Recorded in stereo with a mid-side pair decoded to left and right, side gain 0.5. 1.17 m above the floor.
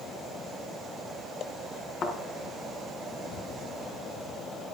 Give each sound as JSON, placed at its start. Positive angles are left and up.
{"t": 2.0, "sound": "a thud", "azimuth_deg": 40, "distance_m": 4.0}